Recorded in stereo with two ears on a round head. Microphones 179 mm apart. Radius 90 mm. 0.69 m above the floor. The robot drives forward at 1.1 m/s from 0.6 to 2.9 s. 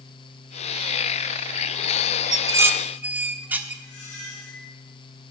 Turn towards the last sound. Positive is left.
turn(degrees=55)  # may be behind; listen again after turning